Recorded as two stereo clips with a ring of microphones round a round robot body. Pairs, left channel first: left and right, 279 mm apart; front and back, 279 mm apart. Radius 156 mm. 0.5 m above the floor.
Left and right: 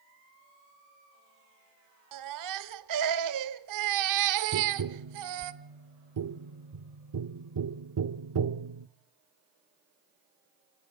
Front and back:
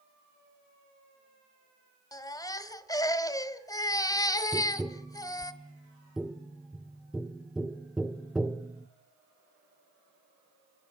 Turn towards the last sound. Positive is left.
turn(degrees=-90)